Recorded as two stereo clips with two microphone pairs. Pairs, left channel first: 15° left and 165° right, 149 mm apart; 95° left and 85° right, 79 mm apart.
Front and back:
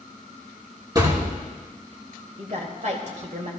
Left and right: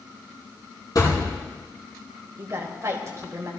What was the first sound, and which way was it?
A thud, 135° left.